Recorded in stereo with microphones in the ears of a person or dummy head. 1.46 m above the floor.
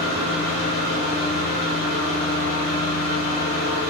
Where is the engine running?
65° left (ahead or behind), 1.3 m.